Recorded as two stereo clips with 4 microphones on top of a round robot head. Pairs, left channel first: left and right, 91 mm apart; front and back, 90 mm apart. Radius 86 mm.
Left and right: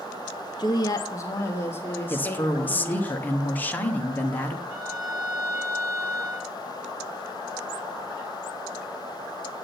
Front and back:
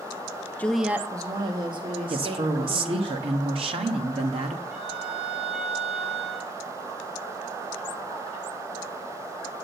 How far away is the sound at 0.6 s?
About 0.6 m.